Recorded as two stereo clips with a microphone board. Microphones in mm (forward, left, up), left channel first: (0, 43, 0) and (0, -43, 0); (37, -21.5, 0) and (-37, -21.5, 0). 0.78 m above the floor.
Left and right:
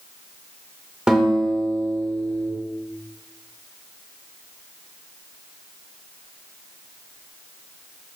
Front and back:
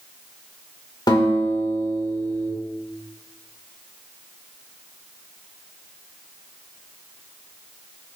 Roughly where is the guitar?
Ahead.